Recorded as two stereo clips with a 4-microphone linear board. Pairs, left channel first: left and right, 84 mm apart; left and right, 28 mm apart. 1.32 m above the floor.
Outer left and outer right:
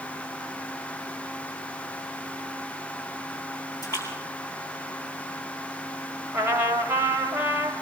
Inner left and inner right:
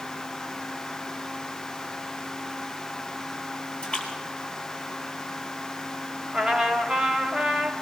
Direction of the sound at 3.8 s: 35° left (ahead or behind).